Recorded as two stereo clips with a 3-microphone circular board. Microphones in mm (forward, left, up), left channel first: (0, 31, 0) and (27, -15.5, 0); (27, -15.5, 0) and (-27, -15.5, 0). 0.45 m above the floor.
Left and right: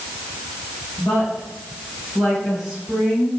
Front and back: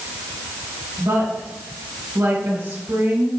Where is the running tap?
No running tap in this recording.